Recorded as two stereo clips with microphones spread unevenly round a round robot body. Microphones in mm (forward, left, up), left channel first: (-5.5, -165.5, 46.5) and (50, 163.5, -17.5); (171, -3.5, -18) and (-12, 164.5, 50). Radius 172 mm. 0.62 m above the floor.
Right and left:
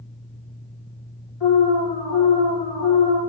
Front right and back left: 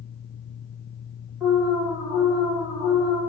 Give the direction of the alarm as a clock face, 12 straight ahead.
4 o'clock.